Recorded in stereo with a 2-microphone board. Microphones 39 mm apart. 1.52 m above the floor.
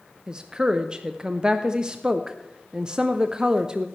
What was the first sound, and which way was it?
A woman speaking, 20° right (ahead or behind).